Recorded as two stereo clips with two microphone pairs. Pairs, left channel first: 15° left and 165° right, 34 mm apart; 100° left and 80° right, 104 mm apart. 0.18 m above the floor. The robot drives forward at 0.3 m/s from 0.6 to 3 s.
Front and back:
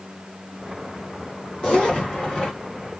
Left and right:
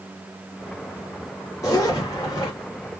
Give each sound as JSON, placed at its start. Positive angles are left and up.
{"t": 1.6, "sound": "a zipper", "azimuth_deg": 65, "distance_m": 1.9}